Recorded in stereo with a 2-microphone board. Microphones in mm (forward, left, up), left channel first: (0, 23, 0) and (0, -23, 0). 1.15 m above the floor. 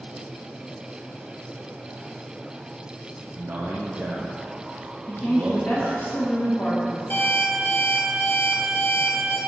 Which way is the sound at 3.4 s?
45° right (ahead or behind).